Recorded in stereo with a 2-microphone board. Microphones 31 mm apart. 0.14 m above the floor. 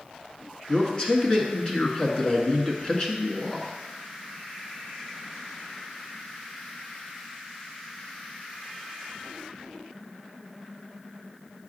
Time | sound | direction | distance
0.7 | a man speaking | 25° left (ahead or behind) | 1.4 m